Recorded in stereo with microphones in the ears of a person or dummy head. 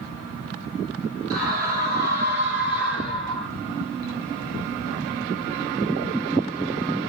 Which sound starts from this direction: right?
A scream, at 1.3 s.